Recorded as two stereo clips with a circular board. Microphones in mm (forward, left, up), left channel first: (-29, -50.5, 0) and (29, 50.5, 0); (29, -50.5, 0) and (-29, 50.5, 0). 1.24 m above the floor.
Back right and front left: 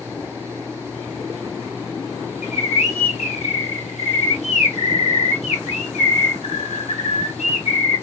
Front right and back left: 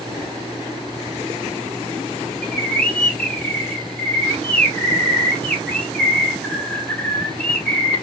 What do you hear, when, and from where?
2.4 s a bird: 140° right, 1.2 m